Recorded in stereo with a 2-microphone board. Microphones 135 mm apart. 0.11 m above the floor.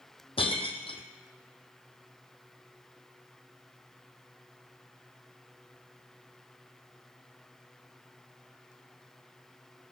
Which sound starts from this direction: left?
Breaking glass, at 0.4 s.